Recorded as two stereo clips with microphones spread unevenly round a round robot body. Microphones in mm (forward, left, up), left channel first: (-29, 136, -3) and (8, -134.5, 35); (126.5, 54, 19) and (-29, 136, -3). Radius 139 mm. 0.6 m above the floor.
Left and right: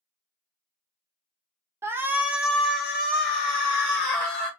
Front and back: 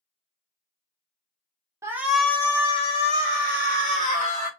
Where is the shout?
170° right, 0.7 m; by 4.5 s 15° left, 1.8 m.